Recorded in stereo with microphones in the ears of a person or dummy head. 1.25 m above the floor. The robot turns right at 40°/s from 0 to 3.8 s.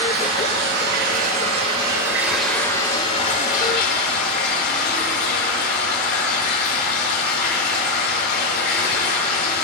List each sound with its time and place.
0.0 s running water: 95° right, 4 m; by 9.6 s 60° left, 4 m